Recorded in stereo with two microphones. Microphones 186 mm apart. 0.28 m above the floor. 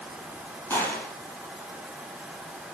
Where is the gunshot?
15° left (ahead or behind), 5 m.